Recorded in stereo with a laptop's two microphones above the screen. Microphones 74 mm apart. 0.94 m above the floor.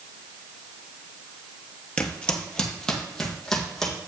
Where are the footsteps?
15° left (ahead or behind), 1.0 m; by 4.1 s 5° left (ahead or behind), 2.5 m.